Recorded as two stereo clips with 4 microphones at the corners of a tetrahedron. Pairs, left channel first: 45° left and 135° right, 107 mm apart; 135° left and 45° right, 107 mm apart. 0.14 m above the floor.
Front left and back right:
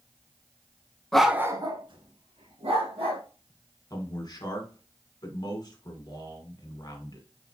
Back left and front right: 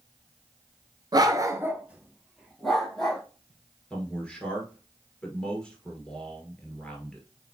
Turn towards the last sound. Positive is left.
turn(degrees=60)